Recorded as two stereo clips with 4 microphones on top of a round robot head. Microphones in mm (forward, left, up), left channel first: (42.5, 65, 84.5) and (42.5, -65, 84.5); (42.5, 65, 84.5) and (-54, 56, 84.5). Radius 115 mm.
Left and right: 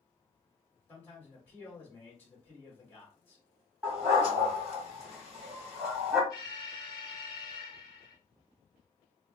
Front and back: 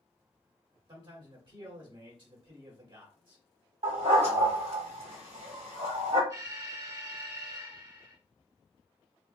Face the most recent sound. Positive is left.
turn(degrees=145)